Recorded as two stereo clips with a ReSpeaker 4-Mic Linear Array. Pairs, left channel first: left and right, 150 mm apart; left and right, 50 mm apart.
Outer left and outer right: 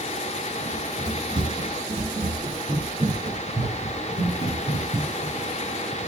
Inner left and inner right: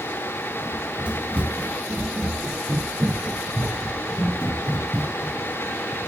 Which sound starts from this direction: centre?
Running footsteps, at 0.7 s.